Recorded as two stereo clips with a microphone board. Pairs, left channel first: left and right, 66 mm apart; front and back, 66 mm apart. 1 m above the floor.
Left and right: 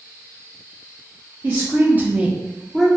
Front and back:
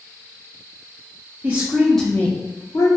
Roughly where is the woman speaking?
Behind right.